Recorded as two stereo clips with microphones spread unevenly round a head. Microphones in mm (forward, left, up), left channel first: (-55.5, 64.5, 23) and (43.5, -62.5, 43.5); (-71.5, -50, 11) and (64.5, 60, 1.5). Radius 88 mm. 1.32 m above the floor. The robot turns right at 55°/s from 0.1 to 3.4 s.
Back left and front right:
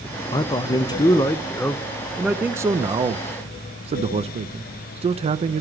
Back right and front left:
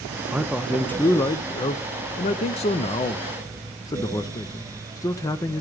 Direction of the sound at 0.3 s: 110° left.